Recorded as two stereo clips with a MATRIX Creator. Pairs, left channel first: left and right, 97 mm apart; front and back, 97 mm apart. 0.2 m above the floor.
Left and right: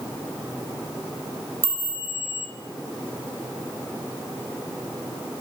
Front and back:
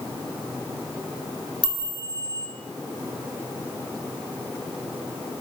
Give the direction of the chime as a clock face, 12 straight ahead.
7 o'clock.